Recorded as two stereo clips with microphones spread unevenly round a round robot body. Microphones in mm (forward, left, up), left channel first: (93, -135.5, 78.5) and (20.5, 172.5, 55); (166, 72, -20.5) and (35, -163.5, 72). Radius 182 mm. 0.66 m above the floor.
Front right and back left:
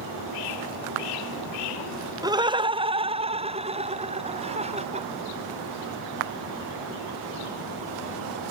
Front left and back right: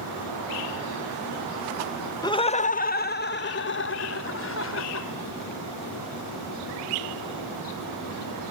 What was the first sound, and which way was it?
Laughter, 40° left.